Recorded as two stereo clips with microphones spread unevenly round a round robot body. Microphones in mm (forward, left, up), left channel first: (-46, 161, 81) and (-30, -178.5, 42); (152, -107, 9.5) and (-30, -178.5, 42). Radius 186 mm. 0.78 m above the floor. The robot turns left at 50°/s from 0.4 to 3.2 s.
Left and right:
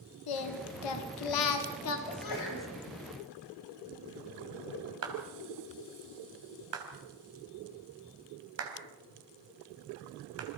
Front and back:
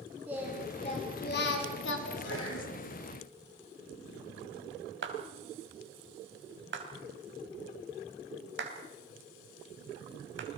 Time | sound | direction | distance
0.3 | singing | 115° left | 1.8 m
2.1 | a sneeze | 70° left | 6 m
5.0 | a clap | 135° right | 3.5 m